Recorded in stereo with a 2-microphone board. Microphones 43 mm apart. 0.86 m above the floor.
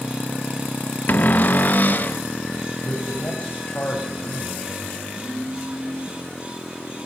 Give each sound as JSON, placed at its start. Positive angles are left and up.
{"t": 1.1, "sound": "a cupboard door", "side_deg": 45, "distance_m": 0.8}
{"t": 2.8, "sound": "a man speaking", "side_deg": 45, "distance_m": 4.0}
{"t": 5.1, "sound": "a phone buzzing", "side_deg": -75, "distance_m": 9.0}